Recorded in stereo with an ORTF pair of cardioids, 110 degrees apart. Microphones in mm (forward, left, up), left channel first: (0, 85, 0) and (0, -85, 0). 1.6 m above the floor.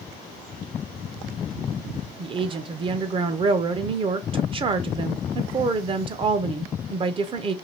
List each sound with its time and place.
2.2 s a woman speaking: 30° right, 0.8 m